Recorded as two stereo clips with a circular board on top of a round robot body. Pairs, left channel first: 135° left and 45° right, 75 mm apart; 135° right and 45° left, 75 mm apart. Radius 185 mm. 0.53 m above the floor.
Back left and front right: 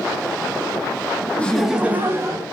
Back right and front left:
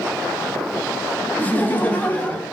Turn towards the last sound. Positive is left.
turn(degrees=-65)